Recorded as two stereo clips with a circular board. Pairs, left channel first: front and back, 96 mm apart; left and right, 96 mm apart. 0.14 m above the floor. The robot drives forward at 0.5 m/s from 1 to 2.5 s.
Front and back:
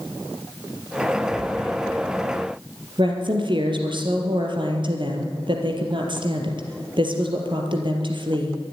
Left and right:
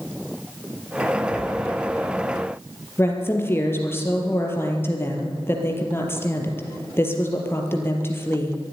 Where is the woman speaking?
155° left, 3.5 m.